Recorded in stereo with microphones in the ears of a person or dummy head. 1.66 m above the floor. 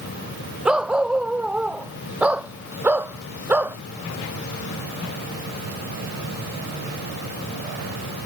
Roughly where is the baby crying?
No baby crying in this recording.